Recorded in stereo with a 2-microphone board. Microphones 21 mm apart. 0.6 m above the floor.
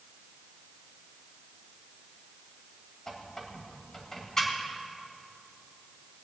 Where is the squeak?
20° left (ahead or behind), 2.0 m.